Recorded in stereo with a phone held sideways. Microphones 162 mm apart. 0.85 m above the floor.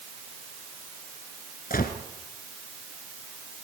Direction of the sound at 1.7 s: 65° left (ahead or behind).